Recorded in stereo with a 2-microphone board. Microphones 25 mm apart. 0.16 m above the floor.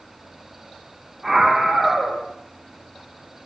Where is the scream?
Centre (ahead or behind), 6.5 m.